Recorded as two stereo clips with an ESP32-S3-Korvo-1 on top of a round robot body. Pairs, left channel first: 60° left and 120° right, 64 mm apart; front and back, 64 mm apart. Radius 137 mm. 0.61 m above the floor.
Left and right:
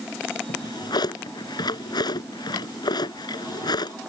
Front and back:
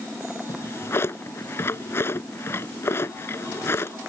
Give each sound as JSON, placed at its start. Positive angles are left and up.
{"t": 0.5, "sound": "a drawer", "azimuth_deg": 55}